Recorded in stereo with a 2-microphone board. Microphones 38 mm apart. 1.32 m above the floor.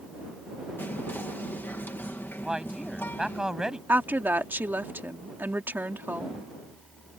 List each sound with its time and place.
0.8 s whispering: 75° left (ahead or behind)
2.4 s a man speaking: 15° right (ahead or behind)
3.9 s a woman speaking: 60° right (ahead or behind)